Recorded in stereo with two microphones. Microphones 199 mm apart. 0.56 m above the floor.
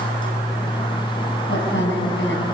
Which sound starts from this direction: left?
A woman speaking, at 1.5 s.